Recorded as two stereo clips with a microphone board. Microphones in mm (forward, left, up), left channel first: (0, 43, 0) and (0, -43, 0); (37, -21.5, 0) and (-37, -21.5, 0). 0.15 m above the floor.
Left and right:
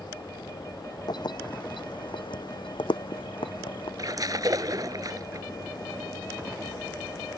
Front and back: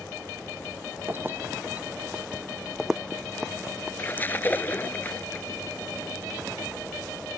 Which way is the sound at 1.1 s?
120° left.